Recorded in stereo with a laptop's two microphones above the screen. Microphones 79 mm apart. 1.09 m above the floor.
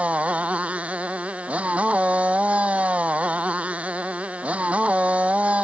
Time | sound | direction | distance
0.0 | a motorcycle | 15° right (ahead or behind) | ?